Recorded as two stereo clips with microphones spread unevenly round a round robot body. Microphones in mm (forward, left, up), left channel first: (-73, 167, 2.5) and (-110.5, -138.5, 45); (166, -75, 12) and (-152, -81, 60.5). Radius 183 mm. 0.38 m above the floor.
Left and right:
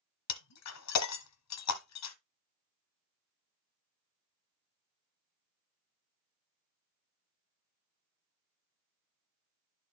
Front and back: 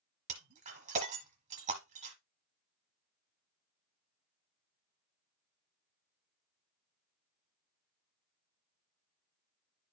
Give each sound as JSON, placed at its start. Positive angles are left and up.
{"t": 0.3, "sound": "breaking glass", "azimuth_deg": 110, "distance_m": 1.1}